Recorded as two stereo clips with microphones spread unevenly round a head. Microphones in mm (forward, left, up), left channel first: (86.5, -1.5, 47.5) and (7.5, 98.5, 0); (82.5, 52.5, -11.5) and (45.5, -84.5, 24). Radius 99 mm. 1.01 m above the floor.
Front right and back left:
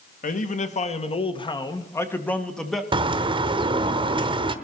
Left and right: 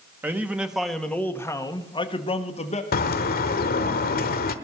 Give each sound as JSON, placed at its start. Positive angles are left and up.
{"t": 0.2, "sound": "a man speaking", "azimuth_deg": -25, "distance_m": 1.7}
{"t": 2.9, "sound": "a bird", "azimuth_deg": 70, "distance_m": 0.9}